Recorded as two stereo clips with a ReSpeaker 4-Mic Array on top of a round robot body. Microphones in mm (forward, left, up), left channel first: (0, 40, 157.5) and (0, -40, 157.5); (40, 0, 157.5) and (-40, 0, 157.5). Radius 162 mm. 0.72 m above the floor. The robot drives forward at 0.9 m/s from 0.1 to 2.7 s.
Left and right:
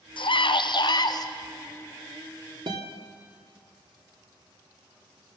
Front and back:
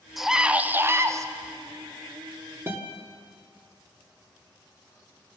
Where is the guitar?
115° right, 1.9 m.